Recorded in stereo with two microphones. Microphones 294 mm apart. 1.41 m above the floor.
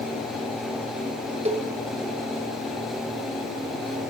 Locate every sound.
1.4 s a cowbell: 25° right (ahead or behind), 0.5 m